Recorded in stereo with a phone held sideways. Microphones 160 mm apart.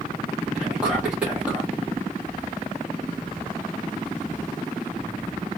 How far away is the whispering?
About 1.3 m.